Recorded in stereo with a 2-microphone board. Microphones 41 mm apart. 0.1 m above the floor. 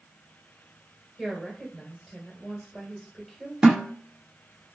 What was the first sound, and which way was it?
A woman speaking, 10° right (ahead or behind).